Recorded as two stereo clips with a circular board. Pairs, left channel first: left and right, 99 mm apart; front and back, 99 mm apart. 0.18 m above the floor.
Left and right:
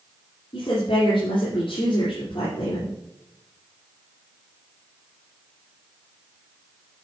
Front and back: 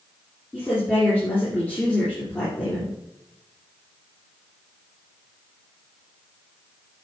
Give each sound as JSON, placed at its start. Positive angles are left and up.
{"t": 0.5, "sound": "a woman speaking", "azimuth_deg": 70, "distance_m": 3.0}